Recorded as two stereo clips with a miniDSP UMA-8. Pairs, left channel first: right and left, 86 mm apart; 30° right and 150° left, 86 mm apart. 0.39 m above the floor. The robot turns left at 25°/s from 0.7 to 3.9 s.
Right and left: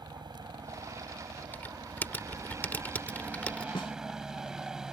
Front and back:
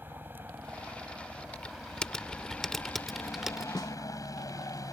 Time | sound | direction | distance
0.0 | a helicopter | 90° left | ?
1.5 | typing on a keyboard | 80° right | ?
3.8 | a snare drum | 70° right | ?